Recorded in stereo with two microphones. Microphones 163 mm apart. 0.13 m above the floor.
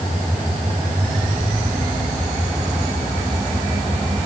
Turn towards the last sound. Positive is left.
No sound to turn to.